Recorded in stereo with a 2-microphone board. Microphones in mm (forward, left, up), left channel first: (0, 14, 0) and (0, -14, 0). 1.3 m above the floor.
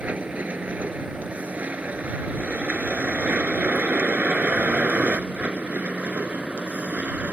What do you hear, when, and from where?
0.0 s a vehicle: 60° right (ahead or behind); by 7.3 s 80° right